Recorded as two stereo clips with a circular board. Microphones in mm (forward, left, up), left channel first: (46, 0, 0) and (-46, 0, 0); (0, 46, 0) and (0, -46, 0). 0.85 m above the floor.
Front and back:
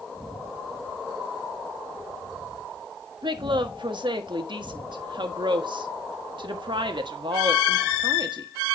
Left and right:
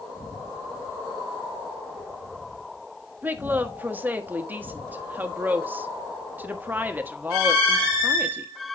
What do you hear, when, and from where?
3.2 s a woman speaking: 155° right, 1.3 m